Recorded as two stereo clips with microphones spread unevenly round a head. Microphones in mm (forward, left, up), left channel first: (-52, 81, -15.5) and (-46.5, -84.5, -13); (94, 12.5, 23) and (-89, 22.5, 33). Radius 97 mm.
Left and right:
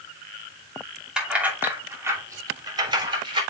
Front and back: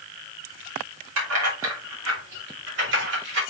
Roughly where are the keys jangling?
Behind.